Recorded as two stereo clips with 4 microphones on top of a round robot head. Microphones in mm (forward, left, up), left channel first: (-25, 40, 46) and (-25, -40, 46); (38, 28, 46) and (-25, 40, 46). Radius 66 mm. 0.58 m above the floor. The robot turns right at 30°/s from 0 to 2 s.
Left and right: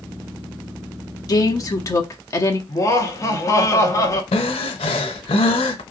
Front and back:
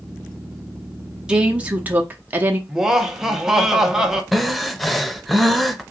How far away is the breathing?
About 0.5 m.